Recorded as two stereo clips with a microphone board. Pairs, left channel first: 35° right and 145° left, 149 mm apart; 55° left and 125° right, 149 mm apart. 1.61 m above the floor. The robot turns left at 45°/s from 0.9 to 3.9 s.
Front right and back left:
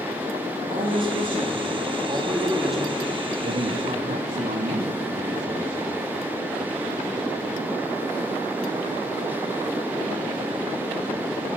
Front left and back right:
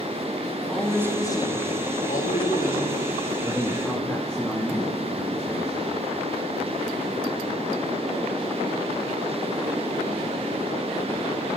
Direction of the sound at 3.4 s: 160° left.